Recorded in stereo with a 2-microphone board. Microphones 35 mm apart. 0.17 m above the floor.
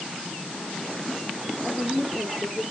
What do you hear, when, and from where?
1.6 s a woman speaking: 40° right (ahead or behind), 5.5 m